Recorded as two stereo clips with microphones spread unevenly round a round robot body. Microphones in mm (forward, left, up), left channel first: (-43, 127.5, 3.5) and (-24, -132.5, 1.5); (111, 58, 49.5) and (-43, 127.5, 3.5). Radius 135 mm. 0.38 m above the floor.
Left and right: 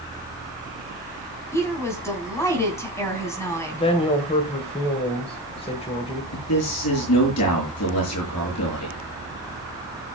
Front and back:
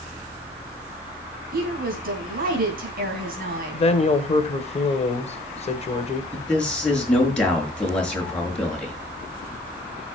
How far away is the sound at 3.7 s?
About 2.0 m.